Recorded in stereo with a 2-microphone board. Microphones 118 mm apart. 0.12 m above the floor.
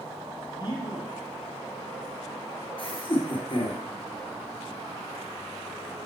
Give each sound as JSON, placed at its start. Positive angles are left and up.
{"t": 0.6, "sound": "a man speaking", "side_deg": 35, "distance_m": 2.5}
{"t": 2.8, "sound": "laughter", "side_deg": 50, "distance_m": 1.9}